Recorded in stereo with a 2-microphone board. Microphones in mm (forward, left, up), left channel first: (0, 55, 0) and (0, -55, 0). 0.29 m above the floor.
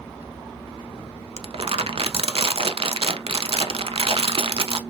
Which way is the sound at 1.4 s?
60° right (ahead or behind).